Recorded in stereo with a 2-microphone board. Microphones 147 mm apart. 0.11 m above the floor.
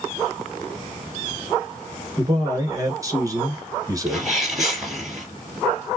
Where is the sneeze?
Centre (ahead or behind), 3 m.